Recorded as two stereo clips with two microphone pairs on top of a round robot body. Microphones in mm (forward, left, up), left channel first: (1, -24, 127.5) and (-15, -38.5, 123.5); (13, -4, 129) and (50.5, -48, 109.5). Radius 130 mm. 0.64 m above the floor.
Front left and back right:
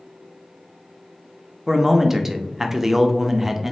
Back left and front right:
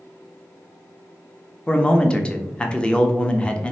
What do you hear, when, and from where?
1.7 s a man speaking: 130° right, 0.6 m